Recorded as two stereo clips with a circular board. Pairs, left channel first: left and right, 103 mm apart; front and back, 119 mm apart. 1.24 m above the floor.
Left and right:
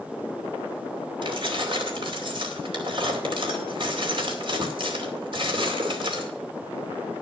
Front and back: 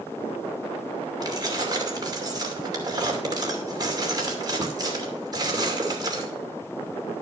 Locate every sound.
1.2 s keys jangling: 125° right, 2.5 m